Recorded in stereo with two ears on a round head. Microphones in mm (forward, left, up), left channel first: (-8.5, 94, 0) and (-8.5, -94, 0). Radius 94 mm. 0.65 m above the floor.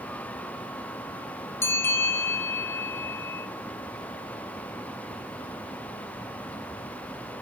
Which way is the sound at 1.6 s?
10° left (ahead or behind).